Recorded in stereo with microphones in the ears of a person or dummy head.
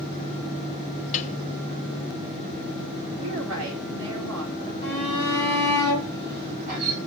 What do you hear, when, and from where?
1.1 s a piano: 35° left (ahead or behind), 0.9 m
3.2 s a woman speaking: 75° right (ahead or behind), 5 m
4.8 s a shout: 55° right (ahead or behind), 8 m